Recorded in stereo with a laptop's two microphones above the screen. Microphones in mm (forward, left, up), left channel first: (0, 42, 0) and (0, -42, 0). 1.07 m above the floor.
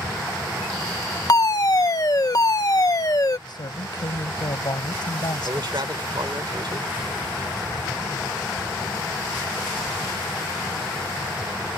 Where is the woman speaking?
60° left (ahead or behind).